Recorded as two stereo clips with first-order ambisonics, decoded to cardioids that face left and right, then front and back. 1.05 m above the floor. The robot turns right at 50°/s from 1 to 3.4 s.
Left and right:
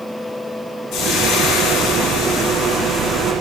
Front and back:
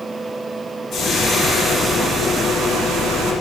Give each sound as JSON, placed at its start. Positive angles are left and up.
{"t": 0.9, "sound": "frying", "azimuth_deg": 50, "distance_m": 1.9}